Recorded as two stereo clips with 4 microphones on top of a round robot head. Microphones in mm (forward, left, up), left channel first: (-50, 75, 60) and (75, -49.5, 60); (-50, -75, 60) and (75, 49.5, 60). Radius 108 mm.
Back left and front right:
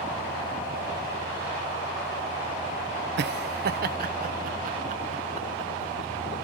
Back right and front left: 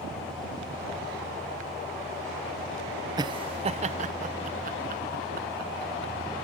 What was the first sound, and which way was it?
Laughter, 20° right.